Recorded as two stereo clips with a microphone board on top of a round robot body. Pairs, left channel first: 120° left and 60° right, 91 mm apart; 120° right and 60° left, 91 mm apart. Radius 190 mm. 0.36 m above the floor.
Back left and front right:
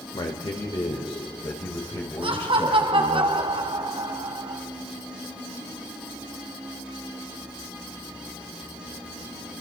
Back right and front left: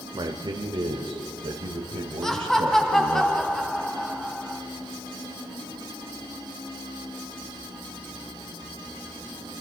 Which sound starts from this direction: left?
A man speaking, at 0.1 s.